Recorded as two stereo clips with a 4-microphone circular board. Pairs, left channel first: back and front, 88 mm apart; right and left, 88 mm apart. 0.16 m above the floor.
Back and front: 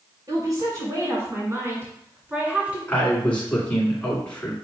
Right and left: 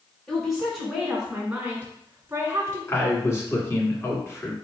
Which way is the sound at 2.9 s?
115° right.